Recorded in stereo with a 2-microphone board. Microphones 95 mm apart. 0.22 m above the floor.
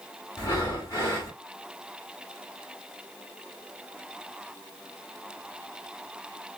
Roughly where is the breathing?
Left.